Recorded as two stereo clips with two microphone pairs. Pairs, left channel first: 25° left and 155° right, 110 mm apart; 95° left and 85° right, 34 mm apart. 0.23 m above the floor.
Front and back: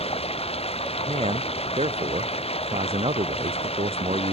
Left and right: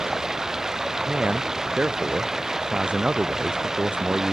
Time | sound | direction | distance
0.0 | running water | 5° right | ?
1.1 | a man speaking | 135° right | ?